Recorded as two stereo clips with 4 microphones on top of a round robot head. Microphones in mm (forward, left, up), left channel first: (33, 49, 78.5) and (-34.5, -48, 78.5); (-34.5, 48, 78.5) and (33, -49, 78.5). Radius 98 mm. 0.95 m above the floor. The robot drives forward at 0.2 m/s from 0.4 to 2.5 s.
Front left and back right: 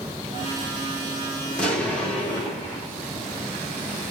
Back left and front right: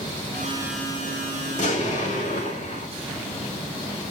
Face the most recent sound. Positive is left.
turn(degrees=140)